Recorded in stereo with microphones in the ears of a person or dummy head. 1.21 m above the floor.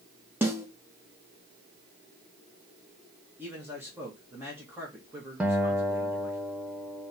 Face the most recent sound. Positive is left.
turn(degrees=-10)  # may be behind; listen again after turning